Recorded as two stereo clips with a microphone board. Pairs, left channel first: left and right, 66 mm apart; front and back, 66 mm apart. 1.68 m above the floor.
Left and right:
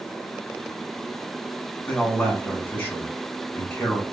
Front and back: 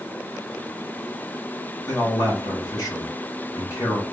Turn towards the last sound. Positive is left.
turn(degrees=30)